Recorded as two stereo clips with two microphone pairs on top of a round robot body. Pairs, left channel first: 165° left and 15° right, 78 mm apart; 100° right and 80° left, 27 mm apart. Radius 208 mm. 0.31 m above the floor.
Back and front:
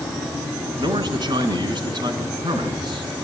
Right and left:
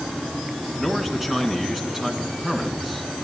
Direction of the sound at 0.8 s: 5° right.